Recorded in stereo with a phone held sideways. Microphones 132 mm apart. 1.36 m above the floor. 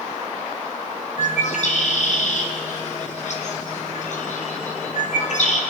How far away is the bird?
About 0.9 m.